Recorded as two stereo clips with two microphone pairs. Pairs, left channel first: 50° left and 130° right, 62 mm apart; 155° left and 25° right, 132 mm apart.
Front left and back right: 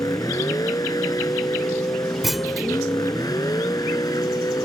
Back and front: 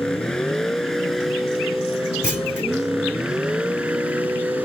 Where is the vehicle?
70° left; by 4.7 s 55° left.